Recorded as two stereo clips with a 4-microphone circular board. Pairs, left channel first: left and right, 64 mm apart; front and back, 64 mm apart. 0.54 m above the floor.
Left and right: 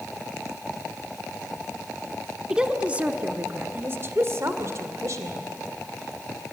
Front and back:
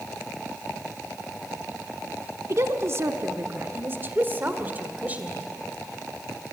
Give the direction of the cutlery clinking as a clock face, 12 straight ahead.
No cutlery clinking in this recording.